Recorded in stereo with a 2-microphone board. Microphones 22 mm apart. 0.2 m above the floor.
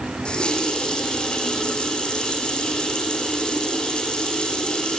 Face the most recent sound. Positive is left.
turn(degrees=45)  # may be behind; listen again after turning